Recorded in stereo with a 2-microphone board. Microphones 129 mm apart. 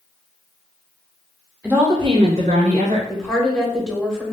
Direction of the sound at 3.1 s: 5° left (ahead or behind).